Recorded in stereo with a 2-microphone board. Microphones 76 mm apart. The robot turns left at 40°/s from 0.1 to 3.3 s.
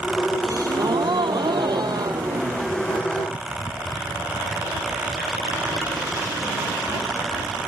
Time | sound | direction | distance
0.4 | a gasp | 50° right | ?